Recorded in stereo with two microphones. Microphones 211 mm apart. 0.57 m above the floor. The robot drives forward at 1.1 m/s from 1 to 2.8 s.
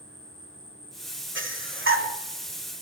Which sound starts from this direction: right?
Breathing, at 1.4 s.